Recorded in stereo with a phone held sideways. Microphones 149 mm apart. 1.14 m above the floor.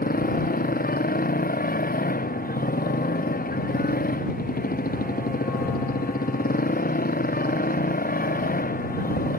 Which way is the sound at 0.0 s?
90° left.